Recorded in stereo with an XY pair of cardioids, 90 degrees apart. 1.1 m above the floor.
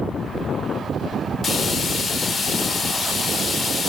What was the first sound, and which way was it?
Frying, 50° left.